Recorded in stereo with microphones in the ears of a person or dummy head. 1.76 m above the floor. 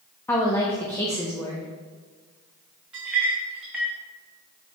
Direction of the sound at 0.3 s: 10° left (ahead or behind).